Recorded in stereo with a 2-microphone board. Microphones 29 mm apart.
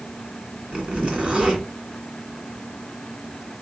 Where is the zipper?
45° right (ahead or behind), 1.8 m.